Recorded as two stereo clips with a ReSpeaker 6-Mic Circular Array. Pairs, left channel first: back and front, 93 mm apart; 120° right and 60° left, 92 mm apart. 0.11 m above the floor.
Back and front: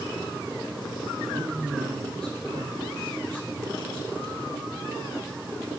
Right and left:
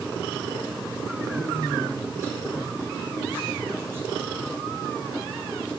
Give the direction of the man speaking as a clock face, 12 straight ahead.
12 o'clock.